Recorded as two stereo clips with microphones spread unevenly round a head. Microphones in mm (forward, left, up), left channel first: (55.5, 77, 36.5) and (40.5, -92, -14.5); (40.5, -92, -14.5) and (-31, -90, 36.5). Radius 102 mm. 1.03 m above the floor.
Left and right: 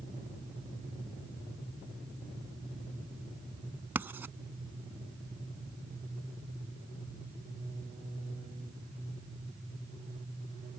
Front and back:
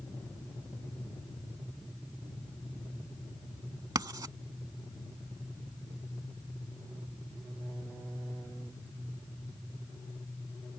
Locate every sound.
4.0 s writing: straight behind